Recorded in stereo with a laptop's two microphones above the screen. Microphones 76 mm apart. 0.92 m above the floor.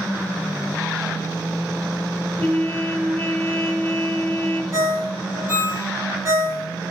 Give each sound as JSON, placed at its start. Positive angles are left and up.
{"t": 2.4, "sound": "a trumpet", "side_deg": 15, "distance_m": 0.7}
{"t": 4.7, "sound": "a ringtone", "side_deg": -40, "distance_m": 0.6}